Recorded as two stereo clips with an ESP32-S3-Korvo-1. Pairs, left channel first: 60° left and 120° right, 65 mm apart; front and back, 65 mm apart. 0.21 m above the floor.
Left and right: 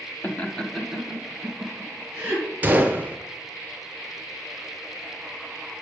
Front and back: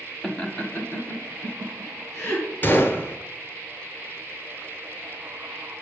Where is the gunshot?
55° right, 0.9 m.